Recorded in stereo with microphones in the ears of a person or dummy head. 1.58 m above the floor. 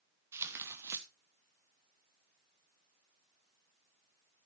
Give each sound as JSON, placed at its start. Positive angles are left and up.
{"t": 0.3, "sound": "tearing paper", "side_deg": -15, "distance_m": 1.0}